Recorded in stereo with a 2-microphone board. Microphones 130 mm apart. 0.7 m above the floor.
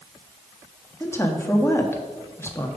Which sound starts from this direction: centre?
A woman speaking, at 1.0 s.